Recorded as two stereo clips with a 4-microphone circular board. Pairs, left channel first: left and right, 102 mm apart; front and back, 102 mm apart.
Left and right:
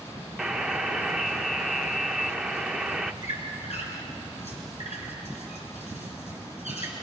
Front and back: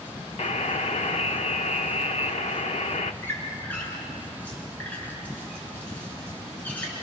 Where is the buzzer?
5° right, 0.7 m.